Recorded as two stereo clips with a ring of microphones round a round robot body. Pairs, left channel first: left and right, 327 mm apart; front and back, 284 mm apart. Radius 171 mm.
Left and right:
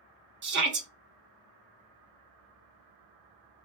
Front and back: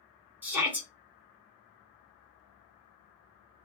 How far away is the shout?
About 0.8 m.